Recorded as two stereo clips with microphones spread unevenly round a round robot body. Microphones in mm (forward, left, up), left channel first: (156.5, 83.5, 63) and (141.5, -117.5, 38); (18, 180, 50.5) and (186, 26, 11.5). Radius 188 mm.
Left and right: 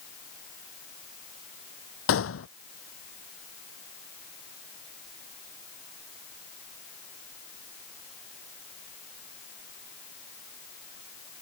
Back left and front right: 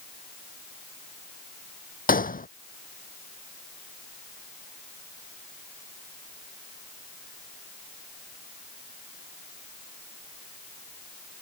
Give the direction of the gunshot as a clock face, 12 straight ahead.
9 o'clock.